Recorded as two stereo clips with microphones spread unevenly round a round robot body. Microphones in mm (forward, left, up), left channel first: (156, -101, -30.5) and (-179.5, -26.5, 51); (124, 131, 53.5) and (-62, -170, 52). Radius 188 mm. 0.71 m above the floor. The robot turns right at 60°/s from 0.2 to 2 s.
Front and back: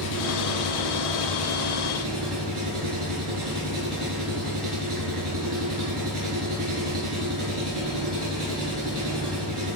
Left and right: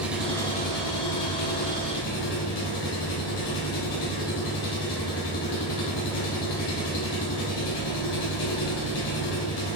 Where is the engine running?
35° right, 3.5 m; by 9.8 s 75° left, 3.5 m.